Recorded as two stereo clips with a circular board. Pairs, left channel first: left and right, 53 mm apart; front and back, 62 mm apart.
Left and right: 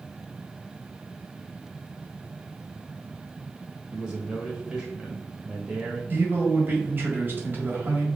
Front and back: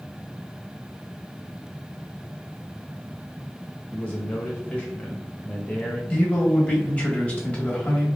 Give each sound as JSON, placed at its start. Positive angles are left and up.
{"t": 3.9, "sound": "a man speaking", "azimuth_deg": -35, "distance_m": 0.9}
{"t": 6.1, "sound": "a man speaking", "azimuth_deg": -55, "distance_m": 1.4}